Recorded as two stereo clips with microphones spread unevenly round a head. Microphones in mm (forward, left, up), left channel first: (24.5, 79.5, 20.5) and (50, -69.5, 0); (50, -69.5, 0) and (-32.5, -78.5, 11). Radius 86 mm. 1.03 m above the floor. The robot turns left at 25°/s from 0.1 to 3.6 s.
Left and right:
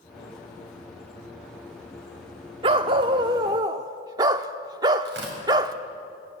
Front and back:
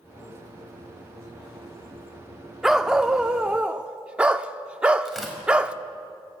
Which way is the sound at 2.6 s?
110° right.